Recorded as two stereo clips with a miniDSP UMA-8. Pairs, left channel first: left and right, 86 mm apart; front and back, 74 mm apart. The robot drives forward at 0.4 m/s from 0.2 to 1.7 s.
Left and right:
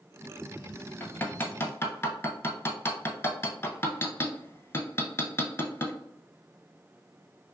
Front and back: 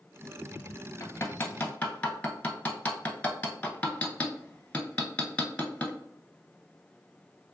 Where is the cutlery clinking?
No cutlery clinking in this recording.